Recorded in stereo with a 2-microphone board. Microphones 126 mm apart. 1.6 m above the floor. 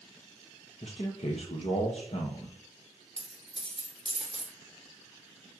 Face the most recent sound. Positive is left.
turn(degrees=40)  # may be behind; listen again after turning